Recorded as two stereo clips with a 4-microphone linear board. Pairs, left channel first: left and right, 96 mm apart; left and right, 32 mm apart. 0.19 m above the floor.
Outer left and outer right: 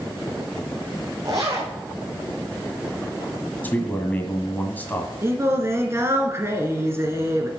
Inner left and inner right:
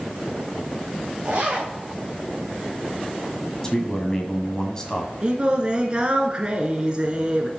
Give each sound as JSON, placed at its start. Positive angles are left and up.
{"t": 1.2, "sound": "a zipper", "side_deg": -35, "distance_m": 2.5}
{"t": 3.6, "sound": "a man speaking", "side_deg": 20, "distance_m": 1.6}
{"t": 5.2, "sound": "singing", "side_deg": -30, "distance_m": 1.8}